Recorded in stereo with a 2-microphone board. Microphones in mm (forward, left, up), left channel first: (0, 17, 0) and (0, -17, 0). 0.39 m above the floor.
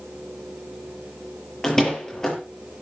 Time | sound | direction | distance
1.6 | a door slam | 15° left (ahead or behind) | 6.5 m